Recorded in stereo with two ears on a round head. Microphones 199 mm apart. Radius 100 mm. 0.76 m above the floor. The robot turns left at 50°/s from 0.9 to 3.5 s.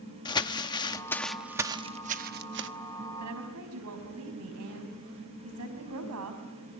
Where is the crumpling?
20° left (ahead or behind), 0.9 m; by 2.7 s 55° right (ahead or behind), 0.9 m.